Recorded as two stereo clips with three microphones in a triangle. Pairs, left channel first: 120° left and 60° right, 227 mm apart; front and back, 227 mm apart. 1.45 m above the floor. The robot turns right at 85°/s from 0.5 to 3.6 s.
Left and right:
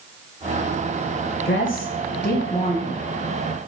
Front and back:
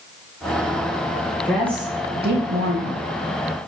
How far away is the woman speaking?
About 0.7 m.